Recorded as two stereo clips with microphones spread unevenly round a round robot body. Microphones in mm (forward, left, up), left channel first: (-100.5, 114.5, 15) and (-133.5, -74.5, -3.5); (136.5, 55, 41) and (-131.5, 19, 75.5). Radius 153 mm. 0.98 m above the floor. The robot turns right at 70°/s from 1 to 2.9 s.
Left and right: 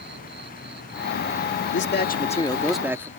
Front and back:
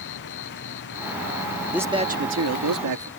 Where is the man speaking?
95° left; by 3.1 s straight behind.